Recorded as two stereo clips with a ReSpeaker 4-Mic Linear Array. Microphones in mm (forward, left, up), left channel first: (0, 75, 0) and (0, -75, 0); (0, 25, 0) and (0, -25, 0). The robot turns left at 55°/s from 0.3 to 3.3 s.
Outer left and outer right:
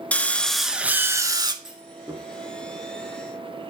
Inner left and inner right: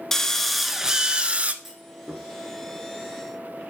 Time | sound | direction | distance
0.1 | a drill | 15° left | 0.6 m
1.6 | a clunk | 5° right (ahead or behind) | 1.5 m